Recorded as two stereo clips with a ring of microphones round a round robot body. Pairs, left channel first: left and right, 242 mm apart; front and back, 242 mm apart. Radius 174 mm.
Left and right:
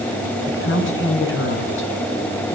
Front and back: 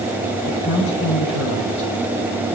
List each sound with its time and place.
0.5 s a woman speaking: 55° left, 7.5 m